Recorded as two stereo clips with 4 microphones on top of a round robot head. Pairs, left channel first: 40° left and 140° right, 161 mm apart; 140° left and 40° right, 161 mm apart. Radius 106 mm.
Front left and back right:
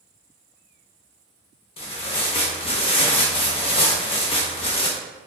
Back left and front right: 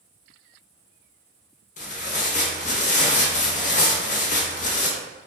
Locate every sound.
1.8 s tearing paper: 95° left, 1.0 m